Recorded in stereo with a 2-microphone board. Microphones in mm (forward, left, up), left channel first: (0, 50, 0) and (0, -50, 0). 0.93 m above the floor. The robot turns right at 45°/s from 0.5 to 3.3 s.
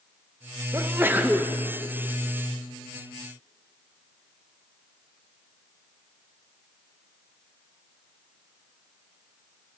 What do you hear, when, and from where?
0.7 s a sneeze: 50° right, 0.8 m; by 1.5 s 15° right, 0.8 m